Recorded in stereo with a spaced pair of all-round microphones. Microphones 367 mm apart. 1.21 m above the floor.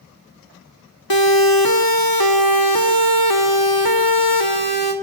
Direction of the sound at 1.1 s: 75° left (ahead or behind).